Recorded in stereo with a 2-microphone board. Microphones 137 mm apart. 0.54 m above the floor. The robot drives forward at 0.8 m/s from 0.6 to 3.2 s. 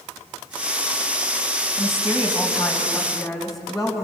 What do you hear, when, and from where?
1.8 s a woman speaking: centre (ahead or behind), 2.5 m